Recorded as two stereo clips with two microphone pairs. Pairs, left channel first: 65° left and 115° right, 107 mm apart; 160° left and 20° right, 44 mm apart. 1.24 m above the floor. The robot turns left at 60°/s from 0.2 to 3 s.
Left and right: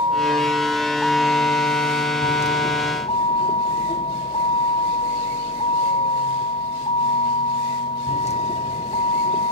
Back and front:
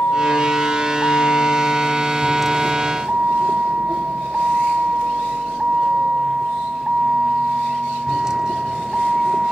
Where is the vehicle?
160° right; by 9.5 s 60° left.